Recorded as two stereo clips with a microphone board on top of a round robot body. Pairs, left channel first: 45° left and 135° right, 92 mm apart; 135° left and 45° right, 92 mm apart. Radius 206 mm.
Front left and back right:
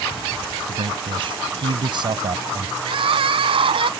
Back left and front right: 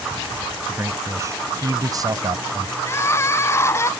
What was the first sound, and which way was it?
A man speaking, 110° right.